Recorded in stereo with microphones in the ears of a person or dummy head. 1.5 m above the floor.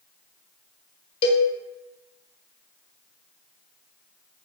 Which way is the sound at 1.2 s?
30° left (ahead or behind).